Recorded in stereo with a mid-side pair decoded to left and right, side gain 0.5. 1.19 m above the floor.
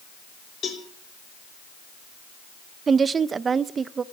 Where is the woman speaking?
40° right, 0.7 m.